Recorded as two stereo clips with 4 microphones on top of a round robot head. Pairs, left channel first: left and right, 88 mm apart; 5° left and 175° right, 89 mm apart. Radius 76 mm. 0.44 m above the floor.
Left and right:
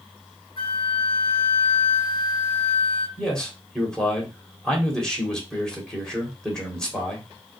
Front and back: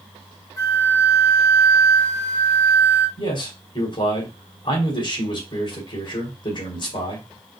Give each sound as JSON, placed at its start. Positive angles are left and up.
{"t": 0.6, "sound": "a flute", "azimuth_deg": 60, "distance_m": 1.4}
{"t": 3.2, "sound": "a man speaking", "azimuth_deg": 10, "distance_m": 2.5}